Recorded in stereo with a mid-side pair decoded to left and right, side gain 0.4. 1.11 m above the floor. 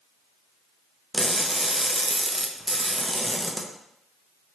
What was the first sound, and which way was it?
Crushing, 15° right.